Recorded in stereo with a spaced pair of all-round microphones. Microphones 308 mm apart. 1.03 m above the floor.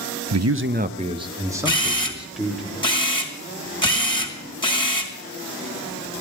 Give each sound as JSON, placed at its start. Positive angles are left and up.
{"t": 0.3, "sound": "a man speaking", "side_deg": -65, "distance_m": 0.6}
{"t": 1.6, "sound": "a camera shutter", "side_deg": 15, "distance_m": 2.5}